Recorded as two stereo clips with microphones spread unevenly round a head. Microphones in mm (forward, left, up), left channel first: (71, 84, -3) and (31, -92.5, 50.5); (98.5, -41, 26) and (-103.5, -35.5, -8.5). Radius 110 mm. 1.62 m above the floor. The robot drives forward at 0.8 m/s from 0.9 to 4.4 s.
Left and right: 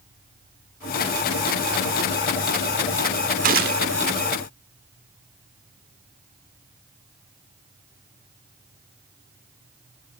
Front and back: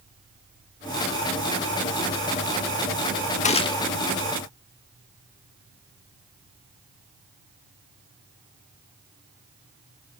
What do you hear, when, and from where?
3.4 s a gunshot: 60° right, 0.9 m; by 3.9 s 85° right, 0.8 m